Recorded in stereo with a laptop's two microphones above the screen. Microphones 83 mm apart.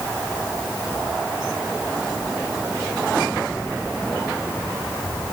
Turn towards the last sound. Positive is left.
No sound to turn to.